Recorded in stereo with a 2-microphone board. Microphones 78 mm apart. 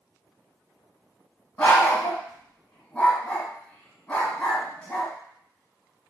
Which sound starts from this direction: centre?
A dog barking, at 1.6 s.